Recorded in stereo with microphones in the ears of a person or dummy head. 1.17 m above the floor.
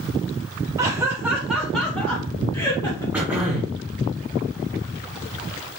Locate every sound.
0.8 s laughter: 15° right (ahead or behind), 0.9 m; by 3.0 s 20° left (ahead or behind), 1.7 m
3.1 s throat clearing: centre (ahead or behind), 1.0 m